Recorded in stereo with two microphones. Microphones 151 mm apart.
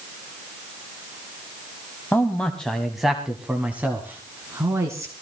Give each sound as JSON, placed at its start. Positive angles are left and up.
{"t": 2.1, "sound": "a man speaking", "side_deg": 15, "distance_m": 1.3}